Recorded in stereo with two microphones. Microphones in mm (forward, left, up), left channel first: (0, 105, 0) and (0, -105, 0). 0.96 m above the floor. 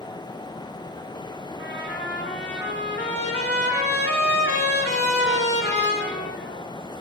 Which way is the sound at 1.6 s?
60° left (ahead or behind).